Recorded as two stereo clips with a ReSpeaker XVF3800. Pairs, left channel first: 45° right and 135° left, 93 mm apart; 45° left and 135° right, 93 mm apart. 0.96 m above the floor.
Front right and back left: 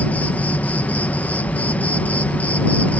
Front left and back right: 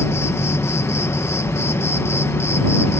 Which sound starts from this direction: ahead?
An insect, at 0.0 s.